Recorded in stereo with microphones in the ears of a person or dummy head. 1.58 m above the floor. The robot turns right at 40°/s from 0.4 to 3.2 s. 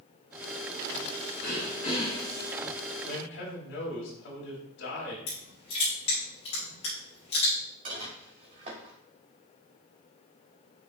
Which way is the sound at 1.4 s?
115° left.